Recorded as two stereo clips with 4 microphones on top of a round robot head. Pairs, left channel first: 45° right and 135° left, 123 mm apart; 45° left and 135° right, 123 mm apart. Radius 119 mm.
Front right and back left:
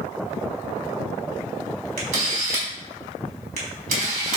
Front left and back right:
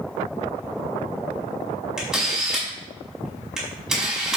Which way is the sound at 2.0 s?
145° left.